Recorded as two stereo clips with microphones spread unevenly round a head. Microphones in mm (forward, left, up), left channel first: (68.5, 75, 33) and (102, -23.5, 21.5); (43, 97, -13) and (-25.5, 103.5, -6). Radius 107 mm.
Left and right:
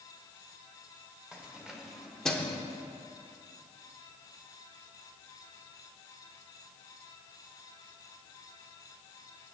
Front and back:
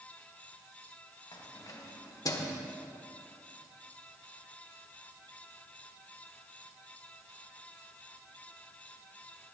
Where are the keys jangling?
10° left, 2.5 m; by 2.6 s 35° left, 1.5 m.